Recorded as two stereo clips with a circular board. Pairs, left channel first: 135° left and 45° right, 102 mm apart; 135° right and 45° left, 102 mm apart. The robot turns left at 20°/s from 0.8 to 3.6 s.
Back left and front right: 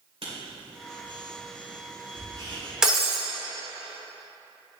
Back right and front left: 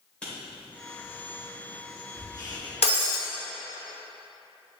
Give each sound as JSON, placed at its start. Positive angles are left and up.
{"t": 0.2, "sound": "writing", "azimuth_deg": -55, "distance_m": 2.5}
{"t": 2.8, "sound": "breaking glass", "azimuth_deg": -130, "distance_m": 1.2}